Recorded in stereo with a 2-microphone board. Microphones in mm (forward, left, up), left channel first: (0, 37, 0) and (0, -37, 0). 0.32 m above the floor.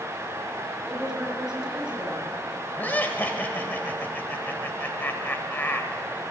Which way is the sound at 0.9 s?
10° right (ahead or behind).